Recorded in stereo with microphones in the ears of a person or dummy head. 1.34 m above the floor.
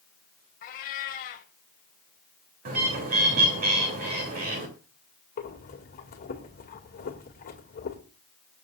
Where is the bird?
45° right (ahead or behind), 3 m.